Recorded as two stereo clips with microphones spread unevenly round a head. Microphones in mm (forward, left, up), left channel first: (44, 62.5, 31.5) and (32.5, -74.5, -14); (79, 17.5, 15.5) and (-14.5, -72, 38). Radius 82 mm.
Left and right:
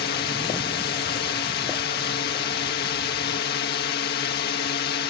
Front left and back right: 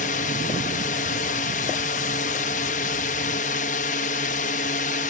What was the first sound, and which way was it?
A drone, 80° left.